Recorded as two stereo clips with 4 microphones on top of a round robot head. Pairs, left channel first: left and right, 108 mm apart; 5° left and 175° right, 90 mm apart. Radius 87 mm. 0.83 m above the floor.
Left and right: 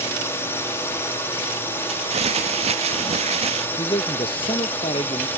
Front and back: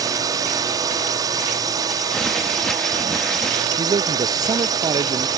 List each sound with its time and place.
0.0 s a drone: 155° left; by 5.4 s 160° left
1.9 s crumpling: 80° right
3.8 s a man speaking: 140° left